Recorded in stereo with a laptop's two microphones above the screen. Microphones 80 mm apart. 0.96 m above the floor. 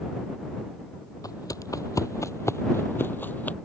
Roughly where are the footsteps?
Left.